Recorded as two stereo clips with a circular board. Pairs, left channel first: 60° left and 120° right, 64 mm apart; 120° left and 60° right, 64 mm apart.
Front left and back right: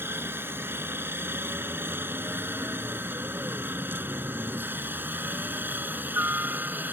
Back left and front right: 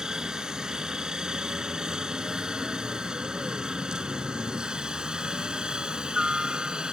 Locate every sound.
0.0 s a helicopter: 130° right; by 6.9 s 120° right